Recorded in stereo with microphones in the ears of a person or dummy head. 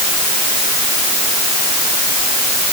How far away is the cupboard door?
I don't hear a cupboard door.